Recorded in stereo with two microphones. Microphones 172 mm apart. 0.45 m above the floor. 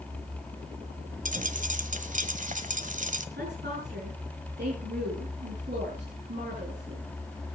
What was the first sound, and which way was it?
A dropped coin, 50° right (ahead or behind).